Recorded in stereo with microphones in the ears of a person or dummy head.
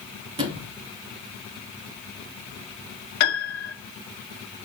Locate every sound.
0.4 s a sliding door: 25° right (ahead or behind), 3.5 m
3.2 s a piano: 55° left (ahead or behind), 1.9 m